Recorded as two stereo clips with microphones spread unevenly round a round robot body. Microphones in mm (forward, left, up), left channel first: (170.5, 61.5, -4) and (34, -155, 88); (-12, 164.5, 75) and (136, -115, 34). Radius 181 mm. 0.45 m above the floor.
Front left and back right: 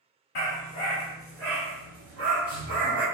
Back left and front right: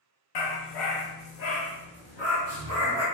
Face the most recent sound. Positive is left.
turn(degrees=-160)